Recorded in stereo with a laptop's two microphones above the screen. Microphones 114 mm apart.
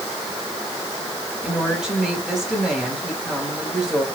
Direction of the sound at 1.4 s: 5° right (ahead or behind).